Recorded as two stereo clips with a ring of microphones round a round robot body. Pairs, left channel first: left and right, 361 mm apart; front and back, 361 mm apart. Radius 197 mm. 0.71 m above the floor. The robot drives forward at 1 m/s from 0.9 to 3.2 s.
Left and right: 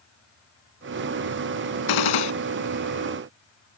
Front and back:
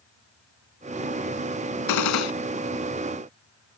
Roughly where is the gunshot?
Ahead left.